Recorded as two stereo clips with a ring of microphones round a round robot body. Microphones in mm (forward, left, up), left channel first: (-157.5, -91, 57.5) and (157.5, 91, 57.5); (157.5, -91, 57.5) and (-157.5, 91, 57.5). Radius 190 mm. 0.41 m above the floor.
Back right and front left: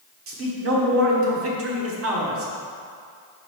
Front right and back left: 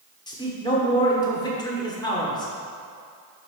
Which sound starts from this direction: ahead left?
A man speaking, at 0.3 s.